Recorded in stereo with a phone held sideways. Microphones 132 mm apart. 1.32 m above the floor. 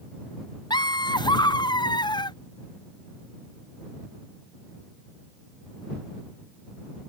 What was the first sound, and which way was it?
Laughter, 35° left (ahead or behind).